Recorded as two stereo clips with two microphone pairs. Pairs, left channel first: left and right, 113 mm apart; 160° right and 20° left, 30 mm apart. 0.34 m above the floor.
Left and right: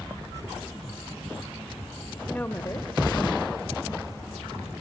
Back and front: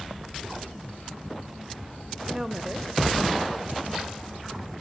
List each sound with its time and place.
2.3 s a woman speaking: 20° left, 0.8 m; by 4.1 s 125° left, 1.8 m